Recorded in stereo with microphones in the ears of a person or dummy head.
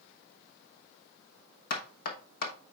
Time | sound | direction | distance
1.7 | knocking | 50° left (ahead or behind) | 1.1 m